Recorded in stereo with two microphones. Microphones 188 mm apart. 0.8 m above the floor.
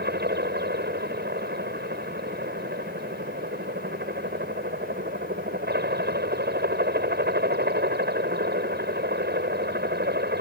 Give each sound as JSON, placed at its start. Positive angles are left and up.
{"t": 0.0, "sound": "a helicopter", "side_deg": -60}